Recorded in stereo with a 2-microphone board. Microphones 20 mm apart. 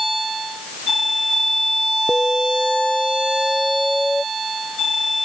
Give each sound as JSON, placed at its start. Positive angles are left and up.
{"t": 2.1, "sound": "an alarm", "side_deg": 30}